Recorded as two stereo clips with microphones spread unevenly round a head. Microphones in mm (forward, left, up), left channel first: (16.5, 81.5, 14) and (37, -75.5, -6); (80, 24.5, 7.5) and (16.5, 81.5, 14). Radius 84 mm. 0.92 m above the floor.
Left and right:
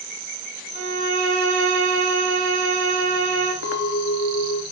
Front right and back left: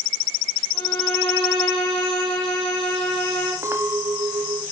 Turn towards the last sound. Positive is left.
turn(degrees=80)